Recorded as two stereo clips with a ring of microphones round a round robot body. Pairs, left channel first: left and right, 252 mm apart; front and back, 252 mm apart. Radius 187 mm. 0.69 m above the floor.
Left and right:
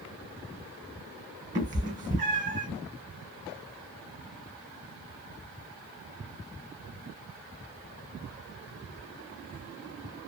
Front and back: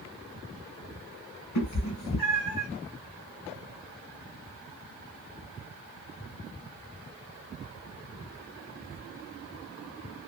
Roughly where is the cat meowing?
Ahead right.